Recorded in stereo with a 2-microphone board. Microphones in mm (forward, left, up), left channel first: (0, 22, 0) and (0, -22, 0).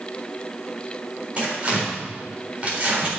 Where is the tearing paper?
30° right (ahead or behind), 3.5 m.